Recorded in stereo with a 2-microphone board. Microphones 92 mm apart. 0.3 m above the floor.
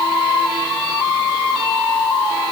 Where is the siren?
I don't hear a siren.